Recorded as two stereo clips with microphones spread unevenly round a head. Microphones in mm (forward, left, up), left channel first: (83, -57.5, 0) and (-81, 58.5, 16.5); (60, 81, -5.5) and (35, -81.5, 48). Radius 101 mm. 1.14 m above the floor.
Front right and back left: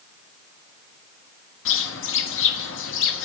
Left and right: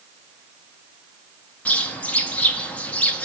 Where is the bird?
5° right, 1.1 m.